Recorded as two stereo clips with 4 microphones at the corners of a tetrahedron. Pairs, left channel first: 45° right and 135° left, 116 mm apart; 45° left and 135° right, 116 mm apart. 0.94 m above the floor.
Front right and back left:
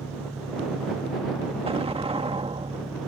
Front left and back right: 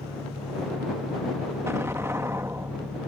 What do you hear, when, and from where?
0.0 s an engine running: 20° left
1.7 s an explosion: 160° left